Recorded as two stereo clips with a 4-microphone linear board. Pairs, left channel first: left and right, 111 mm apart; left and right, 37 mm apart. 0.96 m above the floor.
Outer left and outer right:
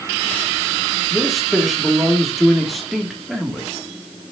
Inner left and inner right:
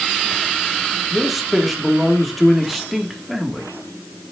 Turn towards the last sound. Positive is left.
turn(degrees=0)  # may be behind; listen again after turning